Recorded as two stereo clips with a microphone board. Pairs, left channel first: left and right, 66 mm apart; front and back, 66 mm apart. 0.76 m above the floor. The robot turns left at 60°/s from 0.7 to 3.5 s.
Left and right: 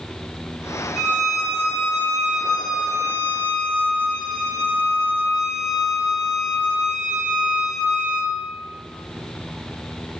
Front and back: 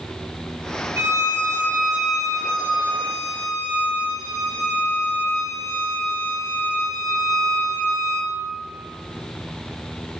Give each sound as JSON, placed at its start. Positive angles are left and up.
{"t": 1.0, "sound": "a violin", "azimuth_deg": 170, "distance_m": 0.8}